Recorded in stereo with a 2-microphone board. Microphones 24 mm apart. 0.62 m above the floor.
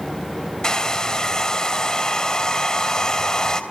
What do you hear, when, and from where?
0.6 s a hair dryer: 25° left (ahead or behind), 3 m